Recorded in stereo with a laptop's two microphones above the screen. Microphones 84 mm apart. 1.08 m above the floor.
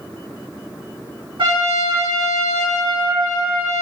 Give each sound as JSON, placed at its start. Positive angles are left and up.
{"t": 1.4, "sound": "a trumpet", "side_deg": -75, "distance_m": 1.5}